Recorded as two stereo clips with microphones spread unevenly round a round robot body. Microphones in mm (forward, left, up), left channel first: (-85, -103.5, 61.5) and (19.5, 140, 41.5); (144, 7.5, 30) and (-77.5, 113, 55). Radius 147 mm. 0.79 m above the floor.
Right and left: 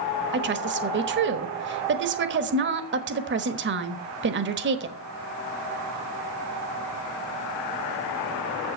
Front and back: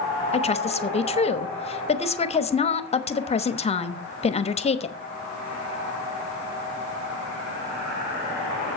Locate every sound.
0.3 s a woman speaking: 30° left, 1.1 m